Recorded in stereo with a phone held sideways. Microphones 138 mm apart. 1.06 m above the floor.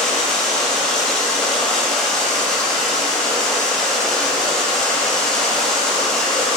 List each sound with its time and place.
0.0 s running water: 5° left (ahead or behind), 4 m